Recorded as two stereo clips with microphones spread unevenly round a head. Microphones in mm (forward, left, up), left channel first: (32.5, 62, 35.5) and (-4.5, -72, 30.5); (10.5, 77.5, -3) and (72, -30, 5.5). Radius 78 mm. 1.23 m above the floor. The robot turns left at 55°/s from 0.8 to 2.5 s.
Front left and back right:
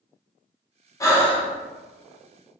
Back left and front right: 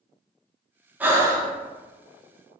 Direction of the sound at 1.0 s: 15° left.